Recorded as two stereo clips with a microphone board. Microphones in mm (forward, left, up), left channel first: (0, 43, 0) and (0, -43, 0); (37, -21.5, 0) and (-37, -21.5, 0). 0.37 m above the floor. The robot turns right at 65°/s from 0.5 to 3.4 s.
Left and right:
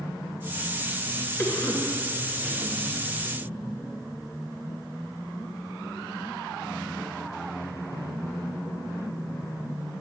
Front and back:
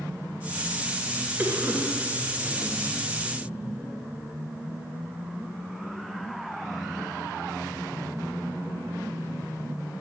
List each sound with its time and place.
1.4 s a cough: 130° left, 1.6 m; by 2.7 s 140° right, 1.6 m